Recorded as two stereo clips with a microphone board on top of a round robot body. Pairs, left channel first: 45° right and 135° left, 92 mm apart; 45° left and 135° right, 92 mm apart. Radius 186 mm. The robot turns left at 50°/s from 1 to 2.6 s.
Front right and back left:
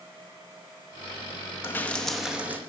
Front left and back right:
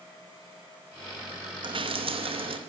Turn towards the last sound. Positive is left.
turn(degrees=-155)